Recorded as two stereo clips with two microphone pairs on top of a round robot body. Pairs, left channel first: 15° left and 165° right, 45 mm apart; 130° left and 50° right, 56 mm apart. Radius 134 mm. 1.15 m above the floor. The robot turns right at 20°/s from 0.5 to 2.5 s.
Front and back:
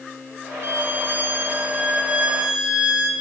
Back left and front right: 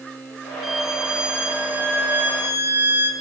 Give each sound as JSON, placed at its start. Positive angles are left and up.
{"t": 0.6, "sound": "a violin", "azimuth_deg": -140, "distance_m": 2.5}